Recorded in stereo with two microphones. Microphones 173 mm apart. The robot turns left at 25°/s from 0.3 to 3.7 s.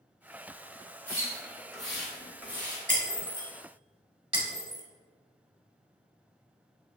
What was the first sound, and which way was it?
A splash, 15° left (ahead or behind).